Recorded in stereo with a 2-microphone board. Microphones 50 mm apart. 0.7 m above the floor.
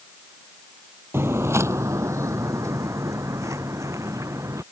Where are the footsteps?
50° right (ahead or behind); by 4.6 s 75° right (ahead or behind).